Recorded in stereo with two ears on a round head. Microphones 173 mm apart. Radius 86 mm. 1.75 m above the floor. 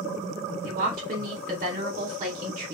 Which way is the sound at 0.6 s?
45° right (ahead or behind).